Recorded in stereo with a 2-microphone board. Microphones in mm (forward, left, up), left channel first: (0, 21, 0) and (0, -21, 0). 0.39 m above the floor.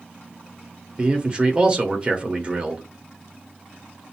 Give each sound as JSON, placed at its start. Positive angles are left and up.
{"t": 1.0, "sound": "a man speaking", "side_deg": -25, "distance_m": 1.2}